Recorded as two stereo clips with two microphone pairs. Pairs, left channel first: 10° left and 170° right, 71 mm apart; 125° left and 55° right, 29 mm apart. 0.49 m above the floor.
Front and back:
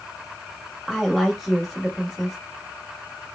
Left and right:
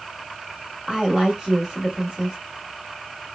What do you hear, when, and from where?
0.9 s a woman speaking: 80° right, 1.0 m